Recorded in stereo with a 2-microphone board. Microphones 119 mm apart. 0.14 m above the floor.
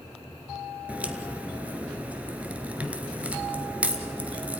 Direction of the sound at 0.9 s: 10° right (ahead or behind).